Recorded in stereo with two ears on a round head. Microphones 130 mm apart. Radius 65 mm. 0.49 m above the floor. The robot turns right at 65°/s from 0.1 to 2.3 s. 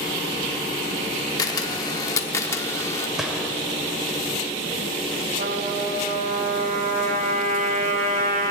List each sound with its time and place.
1.4 s a camera shutter: 25° left (ahead or behind), 0.8 m; by 3.1 s 20° left (ahead or behind), 0.8 m
3.2 s a gunshot: 5° right (ahead or behind), 1.4 m
5.4 s a trumpet: 60° right (ahead or behind), 3 m